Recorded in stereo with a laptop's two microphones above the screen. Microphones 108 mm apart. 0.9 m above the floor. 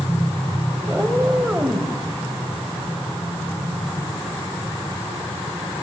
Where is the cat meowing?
10° right (ahead or behind), 0.9 m.